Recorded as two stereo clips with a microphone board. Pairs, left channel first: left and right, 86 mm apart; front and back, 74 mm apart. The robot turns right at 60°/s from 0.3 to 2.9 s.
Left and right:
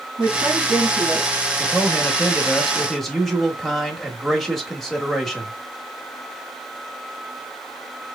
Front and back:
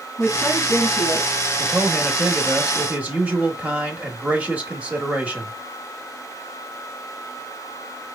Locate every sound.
0.2 s a woman speaking: 60° right, 3 m; by 1.3 s straight ahead, 3 m
1.6 s a man speaking: 100° left, 0.9 m; by 5.5 s straight behind, 0.9 m